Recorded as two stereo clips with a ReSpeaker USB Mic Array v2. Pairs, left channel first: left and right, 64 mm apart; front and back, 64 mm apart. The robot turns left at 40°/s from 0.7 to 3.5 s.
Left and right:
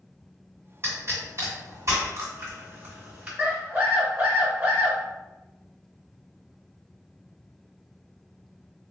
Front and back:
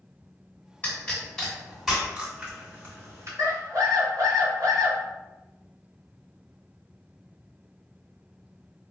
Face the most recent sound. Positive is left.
turn(degrees=-150)